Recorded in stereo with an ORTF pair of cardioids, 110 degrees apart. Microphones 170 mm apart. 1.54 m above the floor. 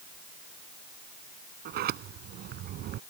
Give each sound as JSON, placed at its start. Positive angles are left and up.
{"t": 1.6, "sound": "a sliding door", "azimuth_deg": -70}